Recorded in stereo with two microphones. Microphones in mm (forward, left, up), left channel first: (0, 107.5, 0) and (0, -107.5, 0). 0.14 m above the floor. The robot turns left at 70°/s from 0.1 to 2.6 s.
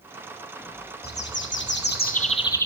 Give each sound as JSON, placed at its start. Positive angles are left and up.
{"t": 1.0, "sound": "a bird", "azimuth_deg": 125, "distance_m": 1.5}